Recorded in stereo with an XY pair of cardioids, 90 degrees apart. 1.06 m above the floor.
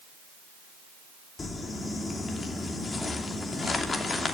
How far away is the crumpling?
About 3 m.